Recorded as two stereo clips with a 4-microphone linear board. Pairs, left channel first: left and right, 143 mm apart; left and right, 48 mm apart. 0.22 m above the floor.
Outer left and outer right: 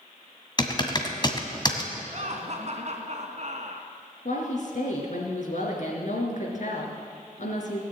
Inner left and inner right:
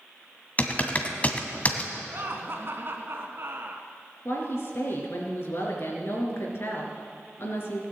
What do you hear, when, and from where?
0.6 s typing on a keyboard: 30° left (ahead or behind), 1.6 m
2.1 s laughter: 50° right (ahead or behind), 2.5 m
4.2 s a woman speaking: 60° left (ahead or behind), 3.5 m